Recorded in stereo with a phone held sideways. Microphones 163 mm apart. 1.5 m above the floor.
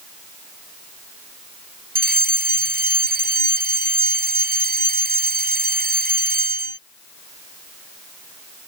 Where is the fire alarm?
85° right.